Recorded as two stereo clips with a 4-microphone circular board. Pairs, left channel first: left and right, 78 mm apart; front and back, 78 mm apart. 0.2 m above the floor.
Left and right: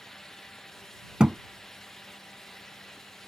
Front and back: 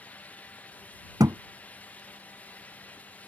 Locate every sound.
1.2 s a thud: 165° right